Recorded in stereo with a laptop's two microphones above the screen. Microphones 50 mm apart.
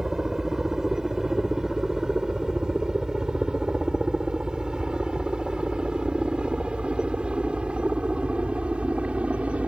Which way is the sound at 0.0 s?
10° right (ahead or behind).